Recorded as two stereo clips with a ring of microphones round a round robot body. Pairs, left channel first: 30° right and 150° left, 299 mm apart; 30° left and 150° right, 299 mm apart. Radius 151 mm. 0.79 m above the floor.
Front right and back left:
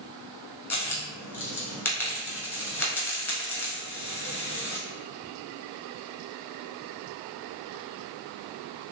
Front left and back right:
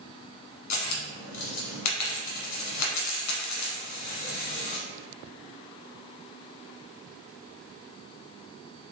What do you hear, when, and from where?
0.7 s a dropped coin: 50° left, 1.0 m